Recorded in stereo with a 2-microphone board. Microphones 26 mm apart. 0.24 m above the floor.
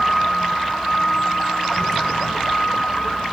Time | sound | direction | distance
0.0 | a vehicle | 15° left (ahead or behind) | ?